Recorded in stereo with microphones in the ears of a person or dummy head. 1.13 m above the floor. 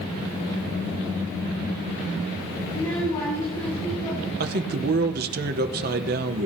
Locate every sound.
2.7 s a child speaking: 25° left (ahead or behind), 3 m
4.4 s a man speaking: 50° right (ahead or behind), 0.9 m